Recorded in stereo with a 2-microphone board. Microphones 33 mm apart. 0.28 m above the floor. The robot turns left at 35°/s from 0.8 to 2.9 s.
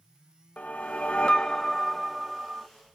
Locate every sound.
0.6 s a whoosh: 55° left, 0.5 m; by 2.7 s 15° right, 0.5 m